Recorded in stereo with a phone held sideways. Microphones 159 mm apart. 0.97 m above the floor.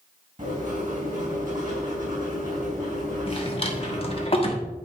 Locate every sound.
0.4 s writing: 55° right (ahead or behind), 3.5 m
3.3 s a drawer: 35° left (ahead or behind), 1.2 m